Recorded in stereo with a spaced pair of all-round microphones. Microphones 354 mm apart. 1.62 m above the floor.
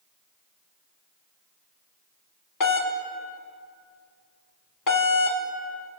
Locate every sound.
2.6 s a doorbell: 60° left (ahead or behind), 0.6 m